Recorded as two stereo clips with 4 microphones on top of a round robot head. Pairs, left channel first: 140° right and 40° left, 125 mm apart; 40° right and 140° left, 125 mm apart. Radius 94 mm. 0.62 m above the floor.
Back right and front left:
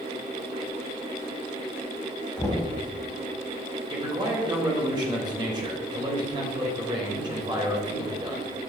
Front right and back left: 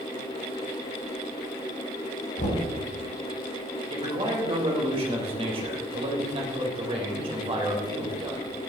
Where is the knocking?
60° right, 3.5 m.